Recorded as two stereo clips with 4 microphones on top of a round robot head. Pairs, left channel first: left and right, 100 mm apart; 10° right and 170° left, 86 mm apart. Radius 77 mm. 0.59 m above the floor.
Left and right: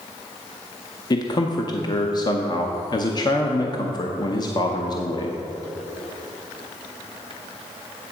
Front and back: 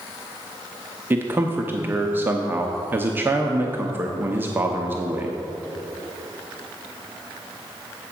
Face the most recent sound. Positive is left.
turn(degrees=115)